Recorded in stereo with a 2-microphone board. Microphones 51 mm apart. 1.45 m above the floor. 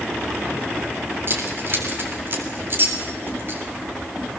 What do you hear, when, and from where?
1.3 s keys jangling: 45° right (ahead or behind), 3.5 m